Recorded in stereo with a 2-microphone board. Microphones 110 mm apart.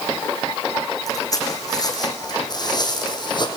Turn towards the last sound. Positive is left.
turn(degrees=40)  # may be behind; listen again after turning